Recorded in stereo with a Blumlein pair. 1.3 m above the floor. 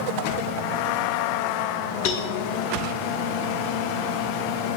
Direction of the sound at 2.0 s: 50° left.